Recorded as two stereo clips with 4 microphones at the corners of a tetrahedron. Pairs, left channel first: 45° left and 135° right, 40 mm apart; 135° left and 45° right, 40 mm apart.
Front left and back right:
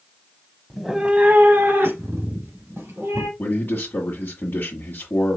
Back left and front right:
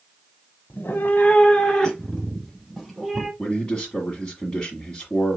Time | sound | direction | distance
0.7 | a cat meowing | 130° left | 0.7 m
3.4 | a man speaking | 75° left | 1.7 m